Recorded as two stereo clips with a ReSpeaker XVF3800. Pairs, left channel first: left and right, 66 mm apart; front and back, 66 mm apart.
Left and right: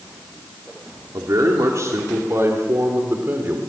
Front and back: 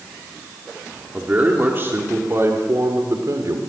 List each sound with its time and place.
1.1 s a man speaking: 115° right, 2.5 m; by 3.6 s 145° right, 3 m